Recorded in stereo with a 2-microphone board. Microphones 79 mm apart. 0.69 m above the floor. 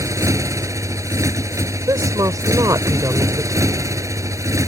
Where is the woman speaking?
50° right (ahead or behind).